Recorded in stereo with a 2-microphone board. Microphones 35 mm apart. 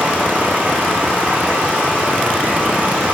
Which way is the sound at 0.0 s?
45° right (ahead or behind).